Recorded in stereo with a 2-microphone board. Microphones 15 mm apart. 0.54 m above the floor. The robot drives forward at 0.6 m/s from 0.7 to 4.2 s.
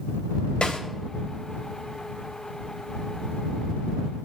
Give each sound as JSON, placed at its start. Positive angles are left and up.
{"t": 0.6, "sound": "a snare drum", "side_deg": 70, "distance_m": 2.5}